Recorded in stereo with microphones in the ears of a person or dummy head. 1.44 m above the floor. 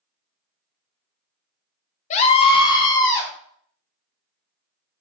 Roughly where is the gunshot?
I don't hear a gunshot.